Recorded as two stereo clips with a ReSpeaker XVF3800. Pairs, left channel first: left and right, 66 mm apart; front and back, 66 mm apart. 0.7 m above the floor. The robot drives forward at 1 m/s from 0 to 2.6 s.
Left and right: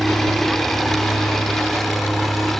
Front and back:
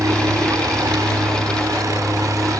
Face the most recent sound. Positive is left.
turn(degrees=180)